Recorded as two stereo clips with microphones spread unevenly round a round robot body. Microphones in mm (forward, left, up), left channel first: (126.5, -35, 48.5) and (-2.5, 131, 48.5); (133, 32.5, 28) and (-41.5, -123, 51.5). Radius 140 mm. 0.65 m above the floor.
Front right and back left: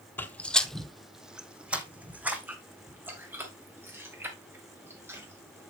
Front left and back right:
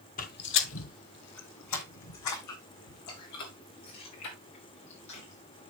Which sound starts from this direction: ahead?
Footsteps, at 0.2 s.